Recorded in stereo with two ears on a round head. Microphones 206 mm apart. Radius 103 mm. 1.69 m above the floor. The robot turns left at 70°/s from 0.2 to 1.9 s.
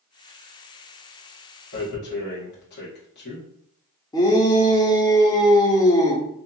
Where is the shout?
15° left (ahead or behind), 0.6 m.